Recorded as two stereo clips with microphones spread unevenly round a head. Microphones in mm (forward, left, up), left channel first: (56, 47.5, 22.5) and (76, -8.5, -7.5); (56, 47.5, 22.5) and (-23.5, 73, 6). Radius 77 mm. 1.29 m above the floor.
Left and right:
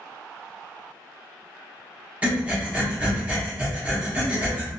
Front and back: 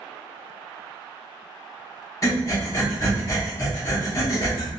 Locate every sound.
2.2 s breathing: 15° left, 1.2 m